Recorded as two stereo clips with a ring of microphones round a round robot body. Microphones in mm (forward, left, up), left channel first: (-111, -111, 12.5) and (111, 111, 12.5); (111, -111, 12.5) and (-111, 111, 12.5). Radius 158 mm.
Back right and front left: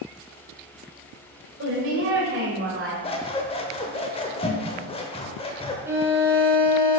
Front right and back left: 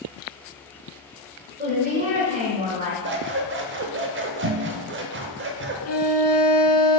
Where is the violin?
35° right, 1.1 m.